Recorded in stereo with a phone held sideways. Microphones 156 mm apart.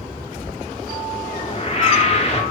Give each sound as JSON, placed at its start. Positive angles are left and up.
{"t": 1.2, "sound": "a whoosh", "side_deg": 45, "distance_m": 1.6}